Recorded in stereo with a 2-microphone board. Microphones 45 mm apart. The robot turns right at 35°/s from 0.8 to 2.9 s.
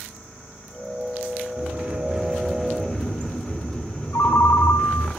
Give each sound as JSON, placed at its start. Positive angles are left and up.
{"t": 1.6, "sound": "a sliding door", "azimuth_deg": -40, "distance_m": 4.0}
{"t": 4.1, "sound": "a ringtone", "side_deg": 80, "distance_m": 3.0}